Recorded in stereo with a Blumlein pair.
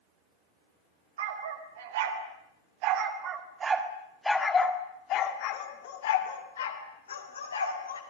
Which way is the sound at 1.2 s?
60° right.